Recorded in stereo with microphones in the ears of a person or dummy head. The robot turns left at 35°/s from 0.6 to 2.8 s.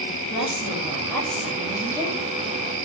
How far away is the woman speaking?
About 9.5 m.